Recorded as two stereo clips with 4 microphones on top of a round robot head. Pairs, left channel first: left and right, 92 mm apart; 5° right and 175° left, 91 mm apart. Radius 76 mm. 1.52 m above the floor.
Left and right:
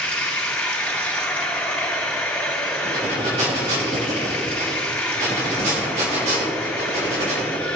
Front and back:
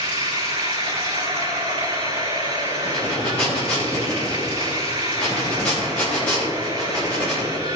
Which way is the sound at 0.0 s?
160° left.